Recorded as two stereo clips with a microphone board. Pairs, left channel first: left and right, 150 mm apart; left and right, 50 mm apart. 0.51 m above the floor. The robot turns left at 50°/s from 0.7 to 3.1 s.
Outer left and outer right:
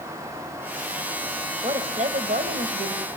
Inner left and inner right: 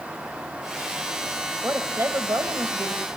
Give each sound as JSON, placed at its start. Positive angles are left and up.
{"t": 1.6, "sound": "a woman speaking", "azimuth_deg": -40, "distance_m": 3.0}